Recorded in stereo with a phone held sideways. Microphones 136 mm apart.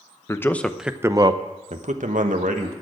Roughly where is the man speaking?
Left.